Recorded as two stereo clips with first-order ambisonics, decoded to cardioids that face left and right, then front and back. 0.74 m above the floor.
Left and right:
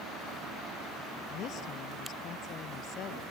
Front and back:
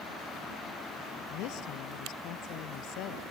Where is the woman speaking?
35° left.